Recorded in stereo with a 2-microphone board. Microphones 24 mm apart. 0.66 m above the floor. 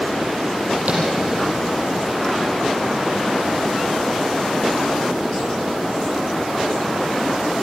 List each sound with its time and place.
0.9 s tapping: 65° right (ahead or behind), 7.5 m